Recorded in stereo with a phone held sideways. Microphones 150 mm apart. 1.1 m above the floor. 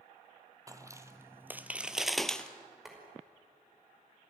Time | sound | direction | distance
0.7 | footsteps | 20° right (ahead or behind) | 1.4 m
2.9 | boiling | centre (ahead or behind) | 5.5 m